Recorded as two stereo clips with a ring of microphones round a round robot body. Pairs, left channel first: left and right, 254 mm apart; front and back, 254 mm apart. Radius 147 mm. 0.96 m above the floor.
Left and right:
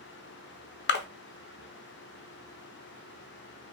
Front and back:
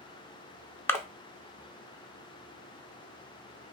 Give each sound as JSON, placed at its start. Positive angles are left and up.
{"t": 0.9, "sound": "a splash", "azimuth_deg": 80, "distance_m": 0.8}